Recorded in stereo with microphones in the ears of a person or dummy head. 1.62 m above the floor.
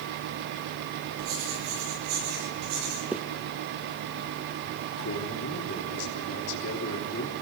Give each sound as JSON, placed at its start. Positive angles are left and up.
{"t": 1.2, "sound": "writing", "side_deg": -85, "distance_m": 9.5}
{"t": 3.1, "sound": "a zipper", "side_deg": -5, "distance_m": 1.0}
{"t": 5.0, "sound": "a man speaking", "side_deg": 65, "distance_m": 3.0}